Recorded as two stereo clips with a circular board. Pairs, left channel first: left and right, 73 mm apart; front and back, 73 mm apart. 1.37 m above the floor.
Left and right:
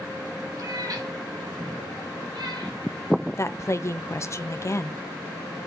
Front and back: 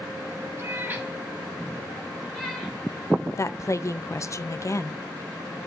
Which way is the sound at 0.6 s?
125° right.